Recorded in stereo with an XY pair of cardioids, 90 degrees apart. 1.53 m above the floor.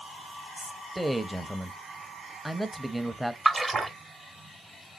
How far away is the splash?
About 0.8 m.